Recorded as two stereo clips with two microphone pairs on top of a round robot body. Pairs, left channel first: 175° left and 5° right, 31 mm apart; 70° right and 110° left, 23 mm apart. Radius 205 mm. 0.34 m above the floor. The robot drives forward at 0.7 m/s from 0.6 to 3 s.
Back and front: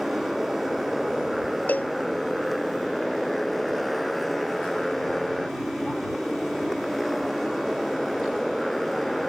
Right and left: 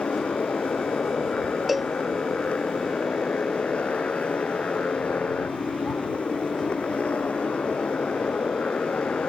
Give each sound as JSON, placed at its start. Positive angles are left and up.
{"t": 0.0, "sound": "a motorcycle", "azimuth_deg": -90}
{"t": 1.7, "sound": "a cowbell", "azimuth_deg": -165}